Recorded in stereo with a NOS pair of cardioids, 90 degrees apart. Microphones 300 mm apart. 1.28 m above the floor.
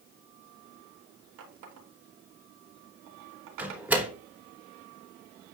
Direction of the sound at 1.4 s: 65° right.